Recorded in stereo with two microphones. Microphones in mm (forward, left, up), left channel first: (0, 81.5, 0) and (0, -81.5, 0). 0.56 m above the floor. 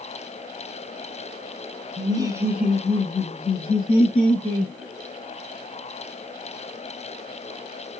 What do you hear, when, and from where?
2.0 s laughter: 25° right (ahead or behind), 0.8 m; by 4.7 s 45° left (ahead or behind), 1.2 m